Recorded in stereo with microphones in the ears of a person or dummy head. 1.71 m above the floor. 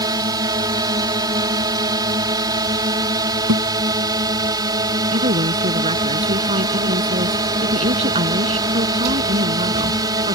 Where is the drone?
20° right (ahead or behind).